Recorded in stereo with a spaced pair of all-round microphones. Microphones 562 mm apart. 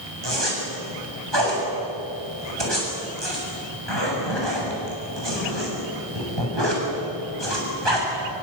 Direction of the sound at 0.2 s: 45° right (ahead or behind).